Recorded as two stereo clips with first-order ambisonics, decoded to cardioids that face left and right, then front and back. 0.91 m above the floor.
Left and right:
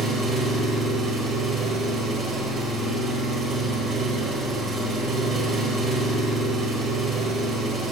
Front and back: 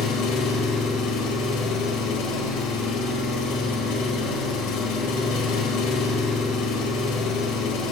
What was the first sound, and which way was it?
An engine running, 25° right.